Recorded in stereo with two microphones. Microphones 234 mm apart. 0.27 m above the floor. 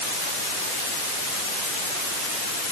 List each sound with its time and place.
Only background noise.